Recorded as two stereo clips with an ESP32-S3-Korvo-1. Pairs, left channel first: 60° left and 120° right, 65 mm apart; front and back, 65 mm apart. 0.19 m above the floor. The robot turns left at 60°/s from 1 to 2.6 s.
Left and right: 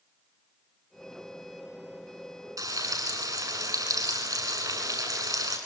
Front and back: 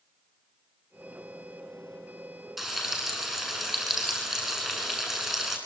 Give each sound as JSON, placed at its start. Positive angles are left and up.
{"t": 2.6, "sound": "frying", "azimuth_deg": -95, "distance_m": 9.0}